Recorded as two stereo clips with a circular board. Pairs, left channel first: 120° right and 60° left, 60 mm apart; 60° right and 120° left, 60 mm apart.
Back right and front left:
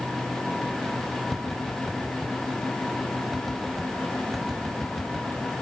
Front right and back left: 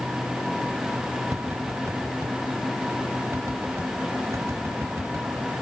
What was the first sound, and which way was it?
Tapping, 150° left.